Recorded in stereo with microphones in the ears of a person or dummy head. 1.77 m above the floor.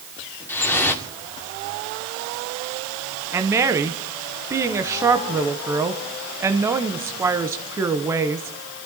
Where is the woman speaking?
15° right (ahead or behind), 1.1 m.